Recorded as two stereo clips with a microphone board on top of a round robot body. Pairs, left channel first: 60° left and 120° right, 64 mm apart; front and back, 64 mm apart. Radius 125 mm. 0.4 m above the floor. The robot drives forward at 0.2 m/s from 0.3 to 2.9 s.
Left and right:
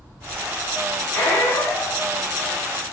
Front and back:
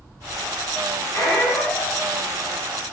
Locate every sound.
1.1 s a squeak: 25° left, 0.8 m; by 2.0 s 35° left, 0.6 m